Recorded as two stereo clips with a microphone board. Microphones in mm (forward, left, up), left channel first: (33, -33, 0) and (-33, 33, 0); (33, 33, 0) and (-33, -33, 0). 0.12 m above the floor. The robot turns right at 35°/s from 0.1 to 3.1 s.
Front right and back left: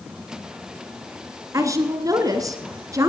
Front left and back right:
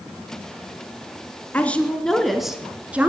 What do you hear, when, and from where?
1.5 s a woman speaking: 110° left, 1.9 m; by 3.1 s 160° left, 1.9 m